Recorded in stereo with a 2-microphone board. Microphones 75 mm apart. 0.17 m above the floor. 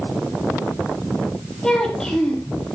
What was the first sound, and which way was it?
A child speaking, 10° left (ahead or behind).